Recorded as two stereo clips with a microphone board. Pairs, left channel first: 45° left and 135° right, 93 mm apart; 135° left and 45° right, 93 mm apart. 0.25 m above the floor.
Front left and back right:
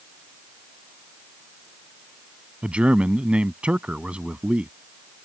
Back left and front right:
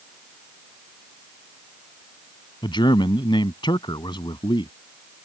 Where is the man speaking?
150° left.